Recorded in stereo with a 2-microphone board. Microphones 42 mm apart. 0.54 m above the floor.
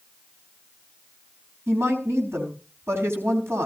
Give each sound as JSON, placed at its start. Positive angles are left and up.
{"t": 1.7, "sound": "a woman speaking", "side_deg": -75, "distance_m": 4.5}